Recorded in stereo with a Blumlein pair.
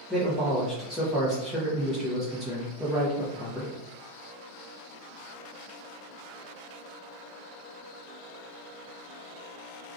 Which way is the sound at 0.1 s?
5° right.